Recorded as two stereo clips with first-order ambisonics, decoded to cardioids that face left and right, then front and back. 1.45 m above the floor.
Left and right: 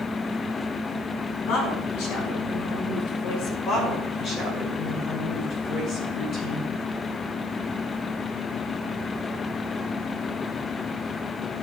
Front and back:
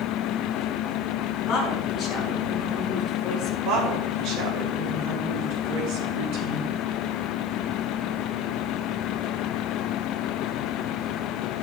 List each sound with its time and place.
1.5 s a woman speaking: 70° left, 6 m
3.6 s a woman speaking: 150° left, 4.5 m